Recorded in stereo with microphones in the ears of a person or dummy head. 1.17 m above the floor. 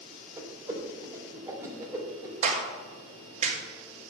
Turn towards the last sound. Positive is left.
turn(degrees=-40)  # may be behind; listen again after turning